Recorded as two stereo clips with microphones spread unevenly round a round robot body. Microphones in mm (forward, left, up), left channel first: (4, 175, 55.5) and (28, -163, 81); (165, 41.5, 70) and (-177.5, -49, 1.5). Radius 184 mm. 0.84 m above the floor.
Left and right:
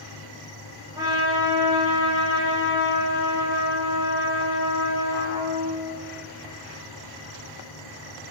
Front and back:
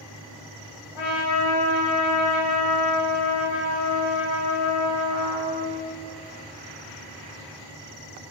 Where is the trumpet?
5° right, 4.5 m.